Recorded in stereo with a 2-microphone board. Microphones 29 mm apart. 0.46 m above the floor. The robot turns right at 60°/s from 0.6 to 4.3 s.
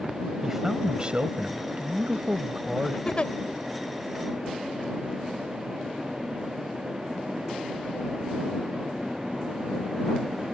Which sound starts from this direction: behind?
A man speaking, at 0.4 s.